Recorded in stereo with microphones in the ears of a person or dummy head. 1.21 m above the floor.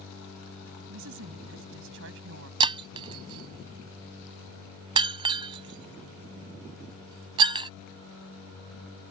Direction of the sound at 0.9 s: 70° right (ahead or behind).